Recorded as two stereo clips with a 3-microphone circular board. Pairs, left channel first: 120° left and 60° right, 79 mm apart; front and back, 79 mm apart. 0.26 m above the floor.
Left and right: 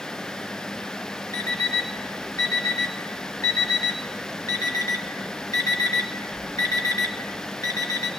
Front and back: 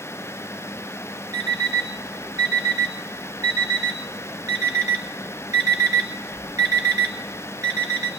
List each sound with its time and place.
1.3 s an alarm clock: 145° left, 1.4 m